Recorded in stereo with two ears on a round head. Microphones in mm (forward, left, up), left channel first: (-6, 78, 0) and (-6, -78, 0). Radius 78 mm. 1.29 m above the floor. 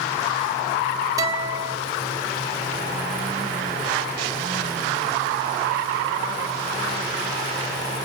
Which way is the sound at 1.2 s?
20° right (ahead or behind).